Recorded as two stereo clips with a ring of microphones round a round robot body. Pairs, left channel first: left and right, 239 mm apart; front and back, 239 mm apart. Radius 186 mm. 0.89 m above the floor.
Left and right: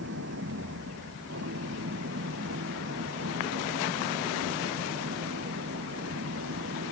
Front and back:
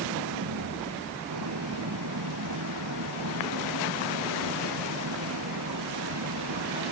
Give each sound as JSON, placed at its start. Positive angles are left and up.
{"t": 0.0, "sound": "an engine running", "azimuth_deg": -145}